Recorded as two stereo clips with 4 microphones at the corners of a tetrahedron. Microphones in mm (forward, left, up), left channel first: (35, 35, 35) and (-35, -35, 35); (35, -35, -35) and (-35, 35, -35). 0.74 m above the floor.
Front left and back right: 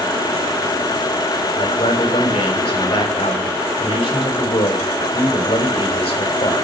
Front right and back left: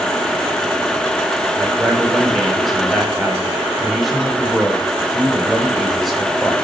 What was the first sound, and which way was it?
A man speaking, 45° left.